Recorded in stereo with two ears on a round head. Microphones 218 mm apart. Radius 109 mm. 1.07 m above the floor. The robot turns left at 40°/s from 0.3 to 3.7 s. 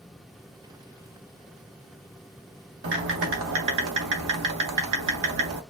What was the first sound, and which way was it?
Typing on a keyboard, 45° right.